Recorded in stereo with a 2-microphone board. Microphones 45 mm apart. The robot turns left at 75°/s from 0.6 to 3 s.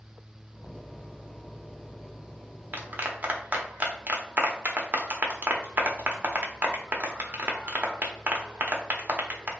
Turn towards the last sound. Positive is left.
turn(degrees=-40)  # may be behind; listen again after turning